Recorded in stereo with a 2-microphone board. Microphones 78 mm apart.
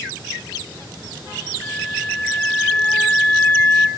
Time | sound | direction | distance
1.6 | a flute | 20° left (ahead or behind) | 2 m